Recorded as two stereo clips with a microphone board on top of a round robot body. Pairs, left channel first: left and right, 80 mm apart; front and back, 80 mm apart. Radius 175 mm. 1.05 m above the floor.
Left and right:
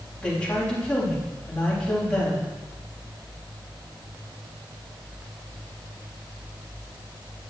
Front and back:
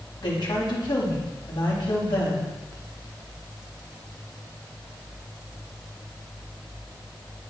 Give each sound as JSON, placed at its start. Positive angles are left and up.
{"t": 0.2, "sound": "a woman speaking", "azimuth_deg": 15, "distance_m": 3.5}